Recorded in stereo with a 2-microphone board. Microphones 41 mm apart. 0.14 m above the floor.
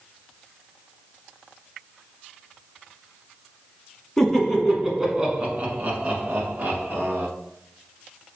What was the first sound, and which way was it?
Laughter, 10° left (ahead or behind).